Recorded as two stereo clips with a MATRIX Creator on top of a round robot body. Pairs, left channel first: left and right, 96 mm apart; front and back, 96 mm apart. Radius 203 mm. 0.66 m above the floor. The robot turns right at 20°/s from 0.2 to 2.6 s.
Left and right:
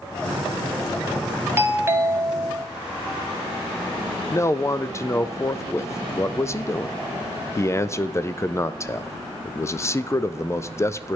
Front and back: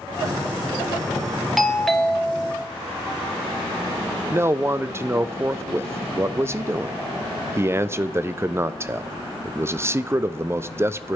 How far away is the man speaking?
About 0.5 m.